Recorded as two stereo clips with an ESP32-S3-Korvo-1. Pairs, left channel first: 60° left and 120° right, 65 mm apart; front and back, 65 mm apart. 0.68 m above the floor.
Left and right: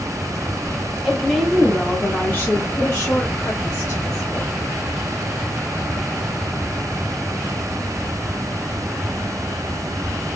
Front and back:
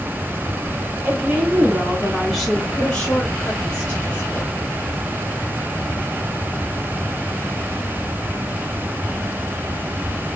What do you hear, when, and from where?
1.1 s a woman speaking: 165° left, 0.9 m; by 4.7 s 55° left, 1.8 m